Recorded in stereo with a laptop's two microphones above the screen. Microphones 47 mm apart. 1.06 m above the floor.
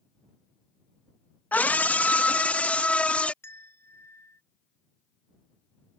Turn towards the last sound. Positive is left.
turn(degrees=70)  # may be behind; listen again after turning